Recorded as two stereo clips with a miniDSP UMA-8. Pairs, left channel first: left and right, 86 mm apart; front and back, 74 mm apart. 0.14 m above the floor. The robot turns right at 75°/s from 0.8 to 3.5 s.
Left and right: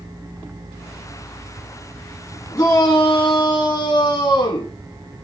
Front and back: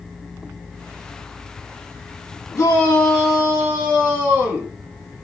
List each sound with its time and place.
2.5 s a shout: 30° left, 6.5 m; by 4.7 s 100° left, 6.5 m